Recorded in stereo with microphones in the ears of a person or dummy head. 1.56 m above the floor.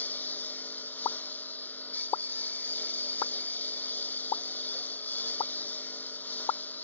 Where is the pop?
25° left (ahead or behind).